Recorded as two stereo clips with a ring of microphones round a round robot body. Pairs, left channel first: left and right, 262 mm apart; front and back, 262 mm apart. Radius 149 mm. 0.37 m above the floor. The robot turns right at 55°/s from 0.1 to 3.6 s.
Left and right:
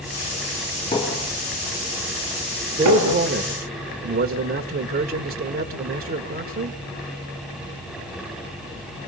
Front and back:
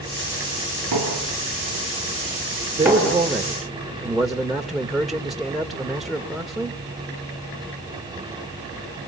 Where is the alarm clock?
No alarm clock in this recording.